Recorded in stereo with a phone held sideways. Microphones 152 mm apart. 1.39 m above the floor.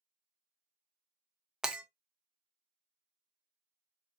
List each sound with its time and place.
1.6 s breaking glass: 5° right (ahead or behind), 0.5 m